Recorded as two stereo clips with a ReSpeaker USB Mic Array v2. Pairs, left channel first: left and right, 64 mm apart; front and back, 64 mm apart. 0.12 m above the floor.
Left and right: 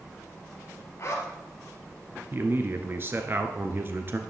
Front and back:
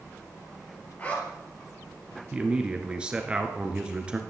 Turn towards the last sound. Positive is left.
turn(degrees=-115)